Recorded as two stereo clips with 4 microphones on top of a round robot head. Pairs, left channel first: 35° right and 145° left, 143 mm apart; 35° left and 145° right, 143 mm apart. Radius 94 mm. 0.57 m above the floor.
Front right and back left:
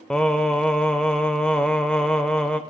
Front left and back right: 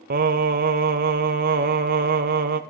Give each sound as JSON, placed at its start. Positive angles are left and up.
{"t": 0.1, "sound": "singing", "azimuth_deg": -120, "distance_m": 0.6}